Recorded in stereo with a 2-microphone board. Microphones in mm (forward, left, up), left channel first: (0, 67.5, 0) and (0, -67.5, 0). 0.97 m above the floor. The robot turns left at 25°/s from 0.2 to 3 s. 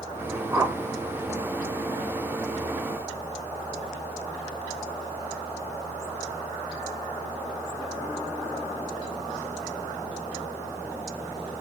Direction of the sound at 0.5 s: 20° right (ahead or behind).